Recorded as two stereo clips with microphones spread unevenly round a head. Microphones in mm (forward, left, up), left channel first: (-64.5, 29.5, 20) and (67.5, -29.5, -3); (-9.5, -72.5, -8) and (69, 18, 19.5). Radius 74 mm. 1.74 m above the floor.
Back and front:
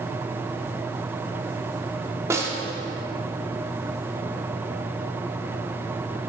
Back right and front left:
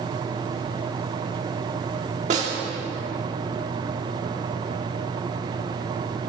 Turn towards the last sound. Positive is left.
turn(degrees=50)